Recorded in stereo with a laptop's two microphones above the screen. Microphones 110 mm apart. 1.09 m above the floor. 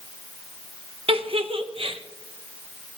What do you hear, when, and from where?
1.1 s a giggle: 60° right (ahead or behind), 0.9 m